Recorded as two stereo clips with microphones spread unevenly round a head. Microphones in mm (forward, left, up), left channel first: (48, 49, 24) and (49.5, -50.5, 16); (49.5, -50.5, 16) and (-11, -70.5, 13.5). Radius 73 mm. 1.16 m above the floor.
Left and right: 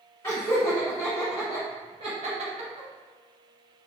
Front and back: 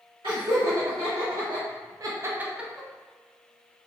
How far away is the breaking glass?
No breaking glass in this recording.